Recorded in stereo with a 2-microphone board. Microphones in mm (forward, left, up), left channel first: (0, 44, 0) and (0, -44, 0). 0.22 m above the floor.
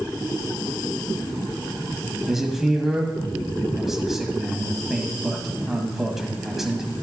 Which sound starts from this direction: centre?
A man speaking, at 2.3 s.